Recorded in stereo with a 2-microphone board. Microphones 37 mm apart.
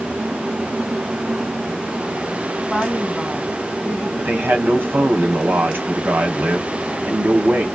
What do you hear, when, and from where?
2.7 s a woman speaking: centre (ahead or behind), 2.0 m
4.2 s a man speaking: 70° right (ahead or behind), 1.4 m